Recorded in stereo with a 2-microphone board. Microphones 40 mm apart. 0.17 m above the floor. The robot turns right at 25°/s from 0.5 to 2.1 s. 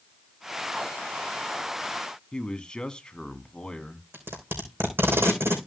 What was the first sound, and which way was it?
A man speaking, 20° left (ahead or behind).